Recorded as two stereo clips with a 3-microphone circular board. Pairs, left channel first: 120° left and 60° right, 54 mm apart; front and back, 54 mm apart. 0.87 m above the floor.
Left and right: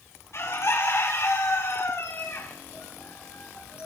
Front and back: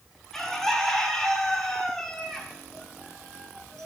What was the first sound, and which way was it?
A bird, 90° left.